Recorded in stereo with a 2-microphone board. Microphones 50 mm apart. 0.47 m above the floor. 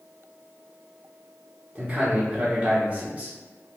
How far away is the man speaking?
About 0.7 m.